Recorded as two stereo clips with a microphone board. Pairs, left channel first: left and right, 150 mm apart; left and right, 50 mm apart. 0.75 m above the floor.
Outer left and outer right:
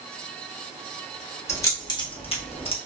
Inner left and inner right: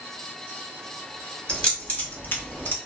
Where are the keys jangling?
20° left (ahead or behind), 1.2 m; by 2.8 s 40° left (ahead or behind), 0.7 m.